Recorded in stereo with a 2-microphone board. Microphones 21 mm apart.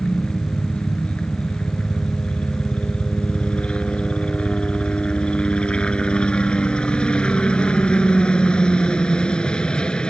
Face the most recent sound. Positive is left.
turn(degrees=50)  # may be behind; listen again after turning